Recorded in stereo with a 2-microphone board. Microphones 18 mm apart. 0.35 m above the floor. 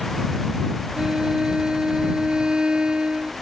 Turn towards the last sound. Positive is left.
turn(degrees=-85)